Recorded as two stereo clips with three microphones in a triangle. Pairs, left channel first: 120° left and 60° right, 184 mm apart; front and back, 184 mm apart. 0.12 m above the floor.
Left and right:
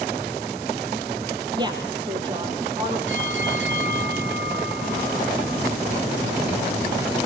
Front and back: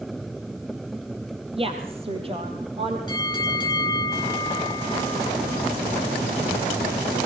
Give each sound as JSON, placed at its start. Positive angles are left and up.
{"t": 1.6, "sound": "a woman speaking", "azimuth_deg": -125, "distance_m": 2.5}
{"t": 3.1, "sound": "a bell", "azimuth_deg": -70, "distance_m": 2.5}